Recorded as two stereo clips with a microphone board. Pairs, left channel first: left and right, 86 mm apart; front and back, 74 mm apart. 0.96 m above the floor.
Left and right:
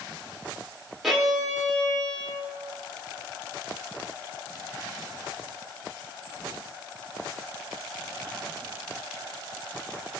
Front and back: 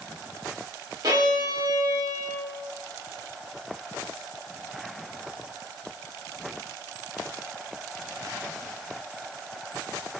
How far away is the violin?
About 1.0 m.